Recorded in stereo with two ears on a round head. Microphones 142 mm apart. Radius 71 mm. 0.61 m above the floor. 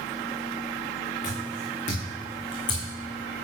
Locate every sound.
1.2 s footsteps: 60° left (ahead or behind), 3.5 m; by 2.9 s 20° left (ahead or behind), 3 m